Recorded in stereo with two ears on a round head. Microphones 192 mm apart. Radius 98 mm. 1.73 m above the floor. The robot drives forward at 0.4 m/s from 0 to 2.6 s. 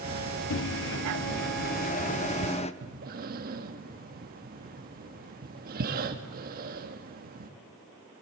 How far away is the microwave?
About 0.6 m.